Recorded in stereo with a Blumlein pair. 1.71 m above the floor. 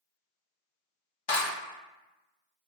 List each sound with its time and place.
1.3 s a clap: 55° left, 1.3 m